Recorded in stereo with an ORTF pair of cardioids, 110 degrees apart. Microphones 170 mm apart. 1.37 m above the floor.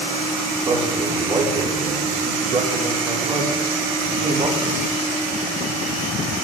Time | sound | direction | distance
0.6 | a man speaking | 35° right | 3.5 m